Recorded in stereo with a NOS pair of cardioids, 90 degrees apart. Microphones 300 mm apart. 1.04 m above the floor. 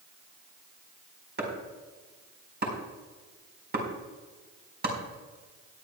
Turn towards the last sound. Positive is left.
turn(degrees=-35)